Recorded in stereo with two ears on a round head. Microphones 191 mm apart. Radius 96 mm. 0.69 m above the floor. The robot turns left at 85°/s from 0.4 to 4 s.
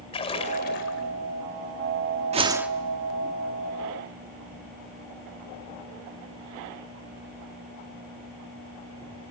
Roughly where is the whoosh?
Behind right.